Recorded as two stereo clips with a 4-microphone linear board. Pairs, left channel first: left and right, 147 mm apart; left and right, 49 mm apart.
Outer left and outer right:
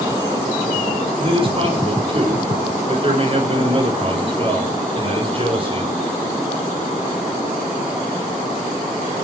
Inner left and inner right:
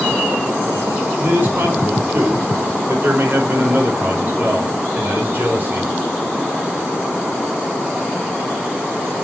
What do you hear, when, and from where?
1.2 s a man speaking: 40° right (ahead or behind), 5 m